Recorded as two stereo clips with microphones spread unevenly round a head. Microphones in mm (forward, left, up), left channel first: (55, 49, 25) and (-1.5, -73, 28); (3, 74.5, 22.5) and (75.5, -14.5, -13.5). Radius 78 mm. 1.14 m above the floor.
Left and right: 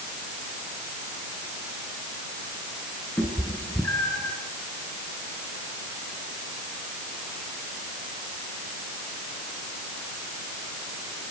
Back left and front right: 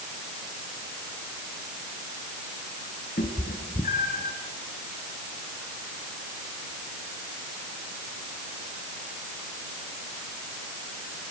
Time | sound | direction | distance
3.2 | a cat meowing | 145° left | 4 m